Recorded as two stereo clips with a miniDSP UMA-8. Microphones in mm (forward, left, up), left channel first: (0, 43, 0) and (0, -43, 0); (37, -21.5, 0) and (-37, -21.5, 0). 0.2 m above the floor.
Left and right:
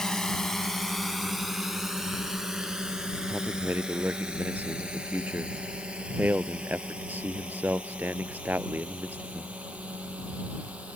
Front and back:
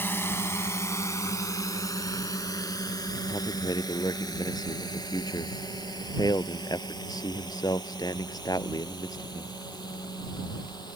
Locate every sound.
0.0 s a drone: 15° left; by 11.0 s 15° right
3.3 s a man speaking: 20° right